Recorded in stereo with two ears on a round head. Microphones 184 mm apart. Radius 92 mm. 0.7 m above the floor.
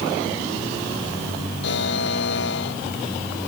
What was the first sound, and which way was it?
A buzzer, 60° left (ahead or behind).